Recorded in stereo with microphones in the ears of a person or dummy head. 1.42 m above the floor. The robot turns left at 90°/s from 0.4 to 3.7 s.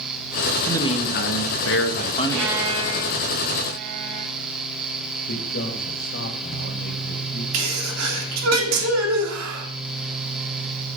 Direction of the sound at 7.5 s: 75° right (ahead or behind).